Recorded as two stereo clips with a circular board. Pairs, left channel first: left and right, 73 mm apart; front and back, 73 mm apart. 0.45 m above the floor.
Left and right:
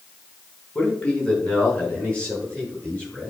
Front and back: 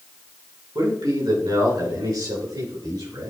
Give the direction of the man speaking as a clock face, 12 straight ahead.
6 o'clock.